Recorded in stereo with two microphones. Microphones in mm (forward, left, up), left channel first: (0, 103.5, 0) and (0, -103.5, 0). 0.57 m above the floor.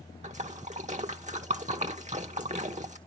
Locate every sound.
0.2 s a splash: 35° right (ahead or behind), 1.1 m